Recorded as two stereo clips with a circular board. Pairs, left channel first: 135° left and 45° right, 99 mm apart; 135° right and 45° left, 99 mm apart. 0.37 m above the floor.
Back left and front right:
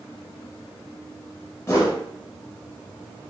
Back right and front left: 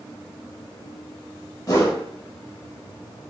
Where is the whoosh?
170° right, 0.8 m.